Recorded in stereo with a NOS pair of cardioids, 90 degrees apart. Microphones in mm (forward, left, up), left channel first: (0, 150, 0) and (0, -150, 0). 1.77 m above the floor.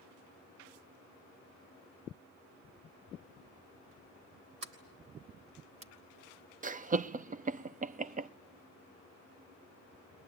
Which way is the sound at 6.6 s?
30° right.